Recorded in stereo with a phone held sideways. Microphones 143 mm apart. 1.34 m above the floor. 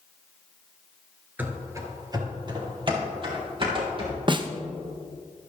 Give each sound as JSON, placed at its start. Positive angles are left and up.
{"t": 1.4, "sound": "running footsteps", "side_deg": -15, "distance_m": 1.3}
{"t": 4.3, "sound": "a snare drum", "side_deg": -35, "distance_m": 0.6}